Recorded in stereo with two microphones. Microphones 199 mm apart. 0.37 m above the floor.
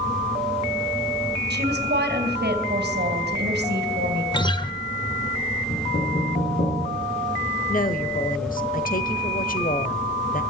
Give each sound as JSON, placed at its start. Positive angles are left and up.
{"t": 1.5, "sound": "a woman speaking", "side_deg": -50, "distance_m": 2.5}
{"t": 4.3, "sound": "a guitar", "side_deg": 20, "distance_m": 0.8}
{"t": 5.7, "sound": "knocking", "side_deg": 55, "distance_m": 9.0}
{"t": 7.7, "sound": "a woman speaking", "side_deg": 45, "distance_m": 1.2}